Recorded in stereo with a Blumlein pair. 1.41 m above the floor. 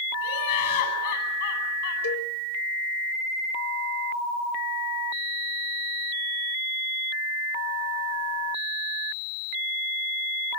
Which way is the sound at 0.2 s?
60° left.